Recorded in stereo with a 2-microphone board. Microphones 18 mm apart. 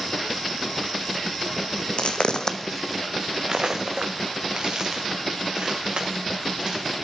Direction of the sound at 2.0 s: 75° left (ahead or behind).